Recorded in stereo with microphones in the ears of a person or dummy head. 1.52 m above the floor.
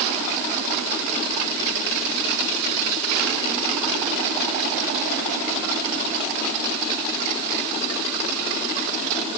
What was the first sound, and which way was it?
Only background noise.